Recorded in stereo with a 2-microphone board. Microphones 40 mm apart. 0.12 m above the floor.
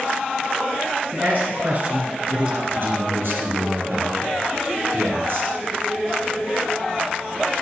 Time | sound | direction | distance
1.1 | a man speaking | 45° right (ahead or behind) | 1.7 m
2.7 | a man speaking | 65° right (ahead or behind) | 2.5 m